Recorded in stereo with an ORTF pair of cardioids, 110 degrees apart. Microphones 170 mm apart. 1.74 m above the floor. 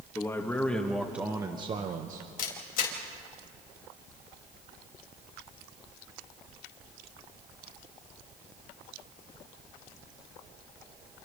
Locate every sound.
0.1 s a man speaking: 15° left, 2.5 m; by 2.3 s 65° right, 1.4 m
2.4 s a camera shutter: 60° left, 4 m